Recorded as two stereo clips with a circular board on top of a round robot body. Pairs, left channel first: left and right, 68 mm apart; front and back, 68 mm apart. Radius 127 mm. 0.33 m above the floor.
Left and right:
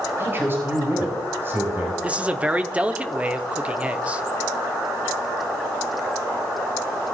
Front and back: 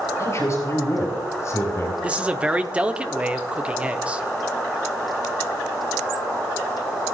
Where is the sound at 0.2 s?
40° right, 4.5 m.